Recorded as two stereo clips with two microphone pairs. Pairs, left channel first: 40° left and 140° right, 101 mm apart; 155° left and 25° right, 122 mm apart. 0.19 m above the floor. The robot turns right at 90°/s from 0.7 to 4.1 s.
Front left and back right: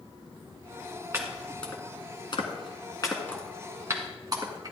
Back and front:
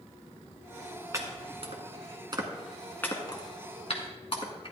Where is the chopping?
85° right, 1.6 m; by 4.7 s straight behind, 1.6 m.